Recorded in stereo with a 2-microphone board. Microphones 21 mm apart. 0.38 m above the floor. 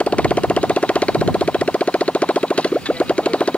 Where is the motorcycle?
90° left; by 3.6 s 80° left.